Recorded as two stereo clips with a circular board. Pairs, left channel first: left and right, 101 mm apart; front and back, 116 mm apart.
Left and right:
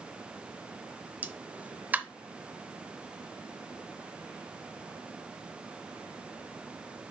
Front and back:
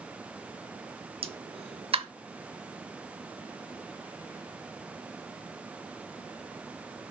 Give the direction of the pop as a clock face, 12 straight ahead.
5 o'clock.